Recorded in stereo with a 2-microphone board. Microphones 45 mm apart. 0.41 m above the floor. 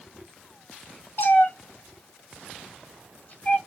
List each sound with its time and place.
1.2 s a cat meowing: 55° left (ahead or behind), 0.9 m; by 3.6 s 35° left (ahead or behind), 1.0 m